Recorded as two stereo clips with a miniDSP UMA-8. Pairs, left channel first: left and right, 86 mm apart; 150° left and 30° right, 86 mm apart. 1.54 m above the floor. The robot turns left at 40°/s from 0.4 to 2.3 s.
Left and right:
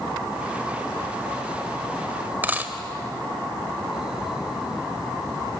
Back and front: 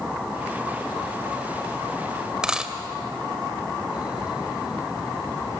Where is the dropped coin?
95° right, 1.3 m.